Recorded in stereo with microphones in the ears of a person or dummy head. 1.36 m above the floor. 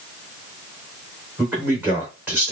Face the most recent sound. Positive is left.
turn(degrees=-10)  # may be behind; listen again after turning